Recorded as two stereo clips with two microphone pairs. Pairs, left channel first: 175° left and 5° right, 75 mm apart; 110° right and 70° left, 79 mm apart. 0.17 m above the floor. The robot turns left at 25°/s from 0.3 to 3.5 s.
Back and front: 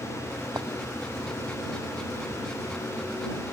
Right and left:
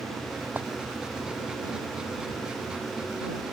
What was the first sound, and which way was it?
A clink, 10° left.